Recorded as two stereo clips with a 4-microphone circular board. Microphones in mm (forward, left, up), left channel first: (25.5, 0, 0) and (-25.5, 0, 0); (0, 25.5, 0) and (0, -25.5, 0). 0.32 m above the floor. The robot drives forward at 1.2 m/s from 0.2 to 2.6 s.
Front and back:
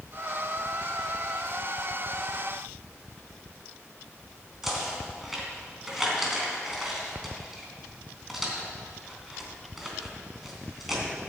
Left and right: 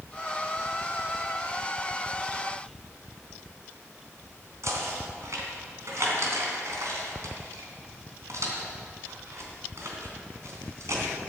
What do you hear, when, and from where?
4.6 s knocking: 95° right, 3 m